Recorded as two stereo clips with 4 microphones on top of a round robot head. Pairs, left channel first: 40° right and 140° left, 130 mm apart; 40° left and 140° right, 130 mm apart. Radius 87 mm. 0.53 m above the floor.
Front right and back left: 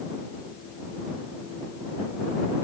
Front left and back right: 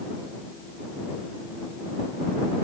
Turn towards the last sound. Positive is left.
No sound to turn to.